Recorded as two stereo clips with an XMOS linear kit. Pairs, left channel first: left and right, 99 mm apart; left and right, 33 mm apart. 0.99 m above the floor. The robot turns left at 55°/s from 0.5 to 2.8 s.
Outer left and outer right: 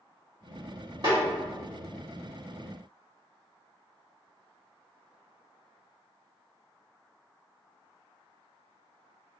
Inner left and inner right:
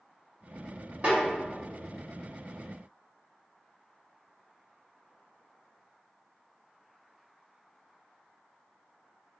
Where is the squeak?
No squeak in this recording.